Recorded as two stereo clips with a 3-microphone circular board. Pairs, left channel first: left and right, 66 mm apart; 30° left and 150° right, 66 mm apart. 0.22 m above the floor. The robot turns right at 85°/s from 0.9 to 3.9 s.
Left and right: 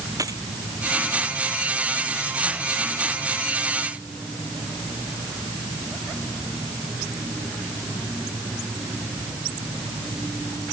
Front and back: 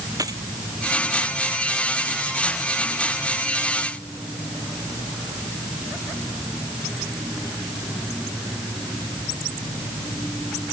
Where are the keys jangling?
120° right.